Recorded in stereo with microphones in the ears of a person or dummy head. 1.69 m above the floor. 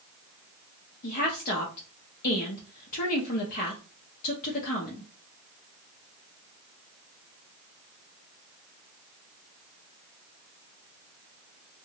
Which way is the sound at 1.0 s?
50° left (ahead or behind).